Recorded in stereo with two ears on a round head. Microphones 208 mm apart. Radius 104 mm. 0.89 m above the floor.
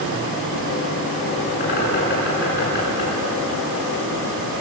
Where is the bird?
45° left (ahead or behind), 9 m.